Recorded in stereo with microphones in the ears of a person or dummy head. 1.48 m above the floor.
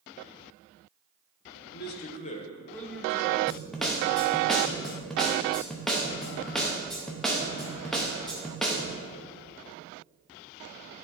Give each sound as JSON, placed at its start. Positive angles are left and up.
{"t": 1.6, "sound": "a man speaking", "side_deg": 60, "distance_m": 0.9}
{"t": 3.5, "sound": "a snare drum", "side_deg": 5, "distance_m": 0.7}